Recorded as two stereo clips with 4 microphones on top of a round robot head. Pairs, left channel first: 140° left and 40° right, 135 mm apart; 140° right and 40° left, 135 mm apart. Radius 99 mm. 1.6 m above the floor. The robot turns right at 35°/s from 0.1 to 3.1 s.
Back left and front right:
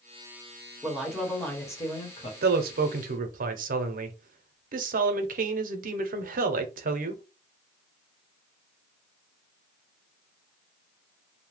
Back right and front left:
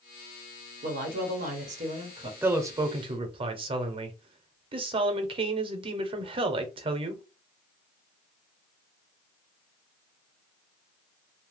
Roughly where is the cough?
No cough in this recording.